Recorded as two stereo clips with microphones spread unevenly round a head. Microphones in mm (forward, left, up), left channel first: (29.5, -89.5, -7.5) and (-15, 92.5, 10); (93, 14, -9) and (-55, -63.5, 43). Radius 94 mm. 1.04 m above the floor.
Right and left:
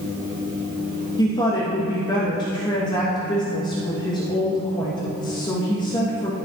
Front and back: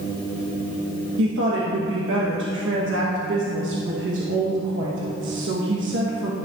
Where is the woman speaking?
140° right, 1.3 m.